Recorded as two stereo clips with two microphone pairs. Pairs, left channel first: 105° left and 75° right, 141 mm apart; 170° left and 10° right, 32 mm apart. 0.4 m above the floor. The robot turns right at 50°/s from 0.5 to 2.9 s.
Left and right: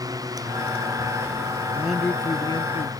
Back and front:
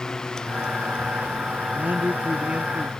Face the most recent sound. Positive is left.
turn(degrees=65)